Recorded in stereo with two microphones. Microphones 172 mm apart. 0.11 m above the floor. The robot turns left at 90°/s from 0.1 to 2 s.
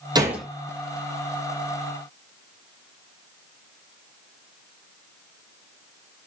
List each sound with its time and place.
0.1 s a gunshot: 25° right (ahead or behind), 1.0 m; by 0.5 s 5° left (ahead or behind), 1.0 m